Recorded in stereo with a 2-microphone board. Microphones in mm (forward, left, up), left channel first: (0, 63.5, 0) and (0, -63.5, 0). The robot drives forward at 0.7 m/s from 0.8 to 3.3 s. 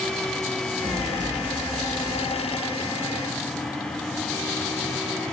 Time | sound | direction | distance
0.8 | an explosion | 30° right (ahead or behind) | 6.5 m